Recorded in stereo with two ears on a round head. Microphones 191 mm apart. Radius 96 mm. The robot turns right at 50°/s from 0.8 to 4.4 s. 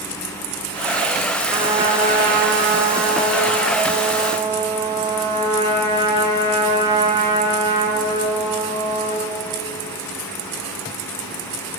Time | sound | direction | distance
1.5 | a trumpet | 165° right | 3 m